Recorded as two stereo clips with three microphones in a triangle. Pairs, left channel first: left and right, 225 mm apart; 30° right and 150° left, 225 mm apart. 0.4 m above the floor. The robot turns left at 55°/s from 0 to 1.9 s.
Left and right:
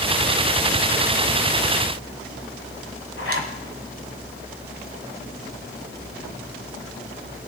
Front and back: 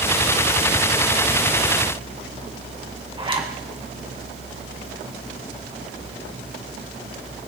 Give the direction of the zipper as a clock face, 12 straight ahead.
9 o'clock.